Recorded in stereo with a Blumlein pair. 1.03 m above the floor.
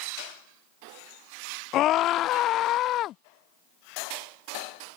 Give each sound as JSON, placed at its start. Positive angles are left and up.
{"t": 1.7, "sound": "a scream", "azimuth_deg": 35}